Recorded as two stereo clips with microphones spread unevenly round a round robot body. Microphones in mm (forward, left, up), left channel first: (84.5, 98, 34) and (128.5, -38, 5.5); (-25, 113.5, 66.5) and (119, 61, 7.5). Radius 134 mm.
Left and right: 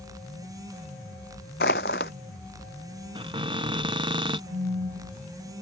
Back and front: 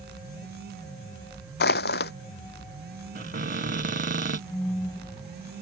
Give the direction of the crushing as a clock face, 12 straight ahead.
7 o'clock.